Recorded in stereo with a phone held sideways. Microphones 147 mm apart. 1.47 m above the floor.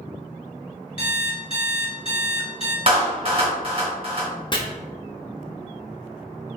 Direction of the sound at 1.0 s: 40° left (ahead or behind).